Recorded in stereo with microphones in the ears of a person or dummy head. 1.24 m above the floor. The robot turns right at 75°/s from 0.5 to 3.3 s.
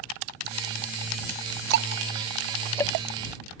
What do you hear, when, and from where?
1.7 s ticking: 65° right (ahead or behind); by 2.9 s 25° left (ahead or behind)